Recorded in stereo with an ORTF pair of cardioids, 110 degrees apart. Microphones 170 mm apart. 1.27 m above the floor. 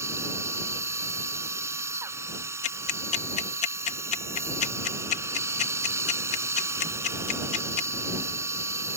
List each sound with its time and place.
0.0 s a machine running: 15° right
2.6 s ticking: 45° left